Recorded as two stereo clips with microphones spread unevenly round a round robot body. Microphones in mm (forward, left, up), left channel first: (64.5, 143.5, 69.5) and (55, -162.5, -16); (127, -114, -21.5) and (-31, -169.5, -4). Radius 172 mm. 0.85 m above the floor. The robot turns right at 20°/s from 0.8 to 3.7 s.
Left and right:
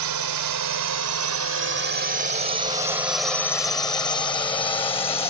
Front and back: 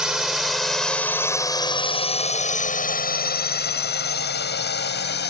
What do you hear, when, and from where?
0.0 s a drone: 75° right; by 5.3 s 15° left